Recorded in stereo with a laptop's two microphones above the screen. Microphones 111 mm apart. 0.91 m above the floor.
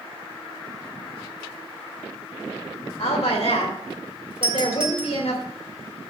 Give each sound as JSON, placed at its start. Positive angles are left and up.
{"t": 3.0, "sound": "a woman speaking", "side_deg": 85, "distance_m": 3.0}
{"t": 4.4, "sound": "a doorbell", "side_deg": -55, "distance_m": 1.7}